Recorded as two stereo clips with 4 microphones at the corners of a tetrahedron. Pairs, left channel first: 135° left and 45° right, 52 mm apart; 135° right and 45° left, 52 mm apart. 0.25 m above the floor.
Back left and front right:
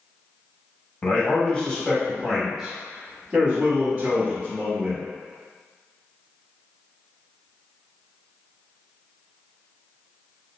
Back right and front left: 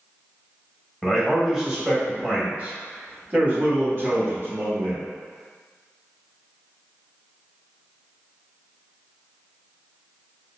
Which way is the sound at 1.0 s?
130° left.